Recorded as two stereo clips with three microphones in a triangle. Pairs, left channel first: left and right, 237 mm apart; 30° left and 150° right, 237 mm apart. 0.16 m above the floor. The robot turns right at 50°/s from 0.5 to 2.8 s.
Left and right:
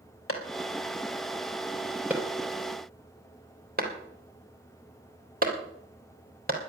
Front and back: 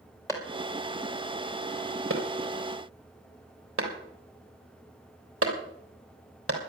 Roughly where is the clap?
Left.